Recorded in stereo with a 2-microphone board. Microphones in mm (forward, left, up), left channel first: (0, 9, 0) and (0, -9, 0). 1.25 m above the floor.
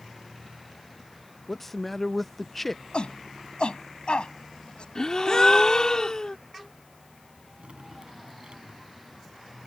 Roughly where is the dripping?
Right.